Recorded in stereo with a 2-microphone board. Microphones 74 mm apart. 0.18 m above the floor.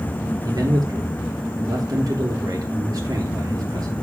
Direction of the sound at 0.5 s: 60° right (ahead or behind).